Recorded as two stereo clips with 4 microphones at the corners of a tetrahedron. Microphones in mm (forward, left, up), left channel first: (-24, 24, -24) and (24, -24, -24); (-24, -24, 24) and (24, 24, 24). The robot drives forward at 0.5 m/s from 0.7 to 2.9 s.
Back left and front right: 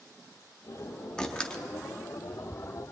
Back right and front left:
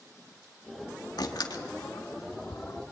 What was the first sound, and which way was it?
A door slam, 145° right.